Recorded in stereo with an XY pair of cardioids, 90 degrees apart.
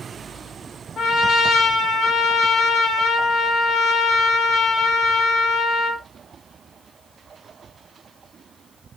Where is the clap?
I don't hear a clap.